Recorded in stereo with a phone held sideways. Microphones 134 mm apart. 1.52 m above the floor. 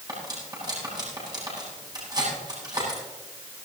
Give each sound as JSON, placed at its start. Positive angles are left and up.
{"t": 0.1, "sound": "cutlery clinking", "side_deg": -30, "distance_m": 8.5}